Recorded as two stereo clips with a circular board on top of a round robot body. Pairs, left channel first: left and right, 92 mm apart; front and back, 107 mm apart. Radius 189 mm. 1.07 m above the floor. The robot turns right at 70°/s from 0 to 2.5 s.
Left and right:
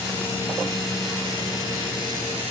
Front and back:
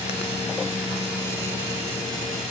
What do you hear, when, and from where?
Only background noise.